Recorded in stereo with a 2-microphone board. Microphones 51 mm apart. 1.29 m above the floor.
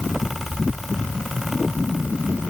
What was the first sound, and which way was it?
Only background noise.